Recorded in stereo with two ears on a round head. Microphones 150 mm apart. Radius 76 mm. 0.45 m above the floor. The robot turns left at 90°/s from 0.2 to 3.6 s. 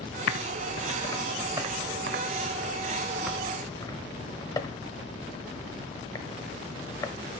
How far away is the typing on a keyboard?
About 0.9 m.